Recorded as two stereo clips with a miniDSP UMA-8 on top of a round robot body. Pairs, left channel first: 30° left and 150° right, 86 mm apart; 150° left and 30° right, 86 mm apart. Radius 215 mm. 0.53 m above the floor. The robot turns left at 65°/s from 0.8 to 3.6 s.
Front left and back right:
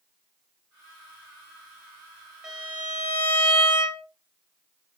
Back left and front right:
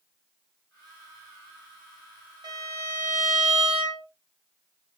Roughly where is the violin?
Ahead right.